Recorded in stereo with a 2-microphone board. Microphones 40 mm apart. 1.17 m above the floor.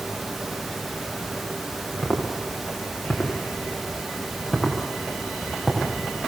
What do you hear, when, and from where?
2.0 s footsteps: 25° left (ahead or behind), 8.5 m; by 5.9 s 5° left (ahead or behind), 8 m